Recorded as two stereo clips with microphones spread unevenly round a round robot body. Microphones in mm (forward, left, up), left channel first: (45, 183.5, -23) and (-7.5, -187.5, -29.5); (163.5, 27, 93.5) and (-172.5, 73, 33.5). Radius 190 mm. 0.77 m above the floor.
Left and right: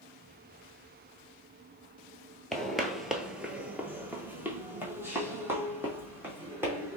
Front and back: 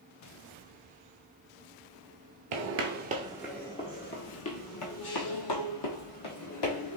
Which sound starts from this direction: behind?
Footsteps, at 2.5 s.